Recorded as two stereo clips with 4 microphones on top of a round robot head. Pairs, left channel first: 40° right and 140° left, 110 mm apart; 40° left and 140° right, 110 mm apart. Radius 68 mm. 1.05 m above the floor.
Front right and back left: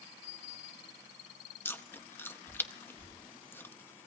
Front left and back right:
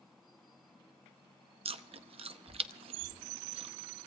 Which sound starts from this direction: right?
Chewing, at 1.6 s.